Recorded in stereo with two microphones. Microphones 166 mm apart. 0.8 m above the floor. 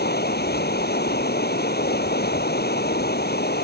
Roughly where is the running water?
Left.